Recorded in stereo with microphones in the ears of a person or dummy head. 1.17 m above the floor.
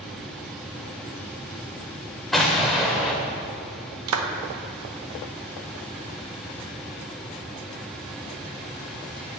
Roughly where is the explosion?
Centre.